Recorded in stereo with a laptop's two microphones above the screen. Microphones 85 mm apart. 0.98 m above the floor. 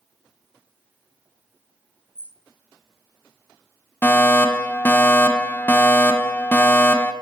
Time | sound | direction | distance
2.1 | a bird | 20° right (ahead or behind) | 3 m
4.0 | a fire alarm | 20° left (ahead or behind) | 1.5 m